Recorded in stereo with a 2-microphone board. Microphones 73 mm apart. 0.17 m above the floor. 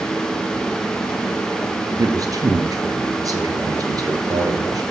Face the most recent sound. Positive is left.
turn(degrees=-55)  # may be behind; listen again after turning